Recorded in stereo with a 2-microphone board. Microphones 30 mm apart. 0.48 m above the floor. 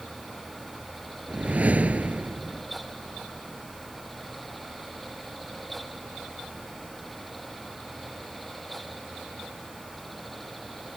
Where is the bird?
No bird in this recording.